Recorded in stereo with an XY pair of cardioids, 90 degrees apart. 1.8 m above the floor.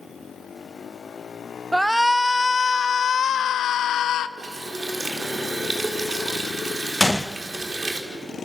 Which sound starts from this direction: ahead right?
A running tap, at 4.4 s.